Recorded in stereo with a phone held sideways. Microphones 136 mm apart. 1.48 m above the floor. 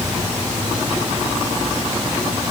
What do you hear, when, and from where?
Only background noise.